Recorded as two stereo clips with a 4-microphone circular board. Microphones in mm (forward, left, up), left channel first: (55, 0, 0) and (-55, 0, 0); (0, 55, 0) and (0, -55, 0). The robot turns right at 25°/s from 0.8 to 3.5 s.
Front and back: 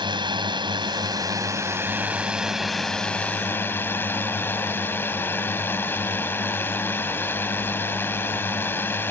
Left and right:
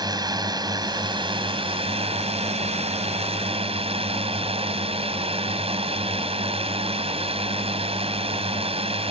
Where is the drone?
140° right; by 9.1 s 70° right.